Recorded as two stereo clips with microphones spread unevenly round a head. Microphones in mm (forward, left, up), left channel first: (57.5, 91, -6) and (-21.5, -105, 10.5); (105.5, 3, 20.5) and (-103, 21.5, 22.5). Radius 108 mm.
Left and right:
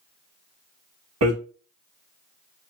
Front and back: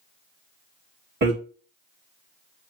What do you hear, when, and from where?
1.2 s hammering: 140° right, 0.9 m